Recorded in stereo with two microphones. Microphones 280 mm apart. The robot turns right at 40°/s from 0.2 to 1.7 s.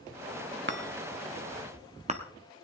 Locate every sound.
0.7 s a chime: 40° right (ahead or behind), 1.1 m; by 2.2 s 25° right (ahead or behind), 1.1 m